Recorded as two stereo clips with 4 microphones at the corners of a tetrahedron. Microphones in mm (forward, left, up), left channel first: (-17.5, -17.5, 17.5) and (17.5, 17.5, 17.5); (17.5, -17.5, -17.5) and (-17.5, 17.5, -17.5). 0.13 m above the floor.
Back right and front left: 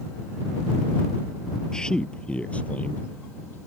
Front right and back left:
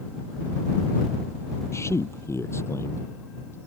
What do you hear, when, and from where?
1.7 s a man speaking: 60° right; by 3.6 s 80° right